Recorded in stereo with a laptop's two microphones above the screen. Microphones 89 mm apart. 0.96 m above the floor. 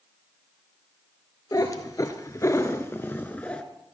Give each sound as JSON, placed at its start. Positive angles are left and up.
{"t": 1.5, "sound": "a cat meowing", "side_deg": 45, "distance_m": 1.4}